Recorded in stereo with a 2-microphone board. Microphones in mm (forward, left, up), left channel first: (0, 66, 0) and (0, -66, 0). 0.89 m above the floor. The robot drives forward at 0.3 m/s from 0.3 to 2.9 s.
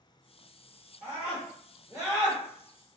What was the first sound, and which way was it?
A scream, 25° right (ahead or behind).